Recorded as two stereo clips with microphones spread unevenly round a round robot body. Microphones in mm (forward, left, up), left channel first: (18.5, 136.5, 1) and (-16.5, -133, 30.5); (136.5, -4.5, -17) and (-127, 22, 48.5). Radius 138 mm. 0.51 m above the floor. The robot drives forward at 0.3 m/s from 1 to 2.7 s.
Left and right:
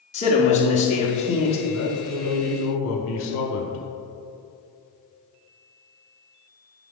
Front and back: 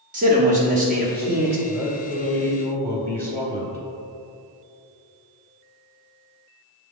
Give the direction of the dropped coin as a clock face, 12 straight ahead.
No dropped coin in this recording.